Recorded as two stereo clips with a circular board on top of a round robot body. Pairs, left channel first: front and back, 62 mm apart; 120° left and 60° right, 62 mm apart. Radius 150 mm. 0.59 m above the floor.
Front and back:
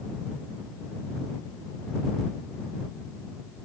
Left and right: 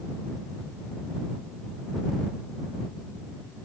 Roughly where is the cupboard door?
I don't hear a cupboard door.